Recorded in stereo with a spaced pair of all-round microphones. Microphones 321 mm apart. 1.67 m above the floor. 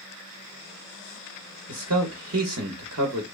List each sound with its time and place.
1.7 s a man speaking: 55° right (ahead or behind), 0.7 m